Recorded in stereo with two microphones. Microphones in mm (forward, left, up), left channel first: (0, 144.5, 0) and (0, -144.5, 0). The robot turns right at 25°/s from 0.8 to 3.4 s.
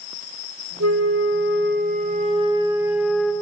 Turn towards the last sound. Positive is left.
turn(degrees=5)